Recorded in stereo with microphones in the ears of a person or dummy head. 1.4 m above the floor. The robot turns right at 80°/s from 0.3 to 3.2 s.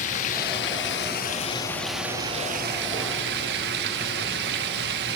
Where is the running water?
50° left, 1.2 m; by 5.2 s 80° right, 1.2 m.